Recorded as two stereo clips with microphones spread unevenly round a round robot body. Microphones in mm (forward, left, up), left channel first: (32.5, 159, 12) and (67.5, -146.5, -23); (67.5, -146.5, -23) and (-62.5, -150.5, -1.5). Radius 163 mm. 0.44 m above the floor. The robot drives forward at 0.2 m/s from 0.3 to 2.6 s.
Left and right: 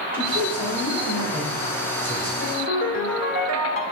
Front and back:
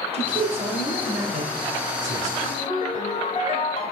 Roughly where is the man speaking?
Behind right.